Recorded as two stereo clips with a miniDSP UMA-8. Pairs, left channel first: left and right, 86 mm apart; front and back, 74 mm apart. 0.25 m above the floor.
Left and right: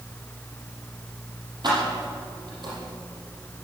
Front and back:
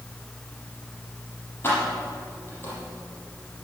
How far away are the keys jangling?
About 6.5 m.